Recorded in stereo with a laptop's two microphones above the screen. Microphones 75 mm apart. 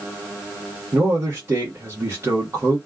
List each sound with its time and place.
0.9 s a man speaking: 40° right (ahead or behind), 1.2 m